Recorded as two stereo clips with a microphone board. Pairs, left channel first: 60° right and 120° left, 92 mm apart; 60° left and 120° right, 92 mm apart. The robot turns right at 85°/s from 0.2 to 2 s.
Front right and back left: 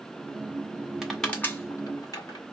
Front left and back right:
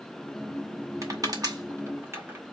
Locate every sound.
1.0 s crushing: 160° right, 1.8 m; by 2.4 s 75° right, 1.8 m